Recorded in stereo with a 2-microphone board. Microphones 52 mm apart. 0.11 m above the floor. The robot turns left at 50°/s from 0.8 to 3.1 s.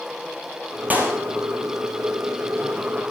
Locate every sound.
0.9 s a clap: 30° right (ahead or behind), 2 m; by 1.2 s 45° right (ahead or behind), 2 m